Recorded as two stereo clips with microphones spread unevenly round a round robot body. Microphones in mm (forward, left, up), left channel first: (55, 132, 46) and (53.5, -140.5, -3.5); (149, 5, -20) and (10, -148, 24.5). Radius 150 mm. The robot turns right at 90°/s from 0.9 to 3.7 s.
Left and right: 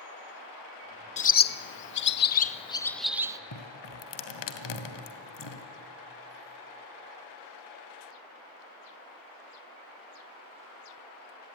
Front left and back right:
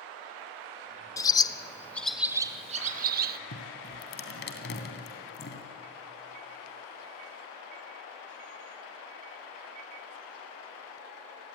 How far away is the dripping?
About 2 m.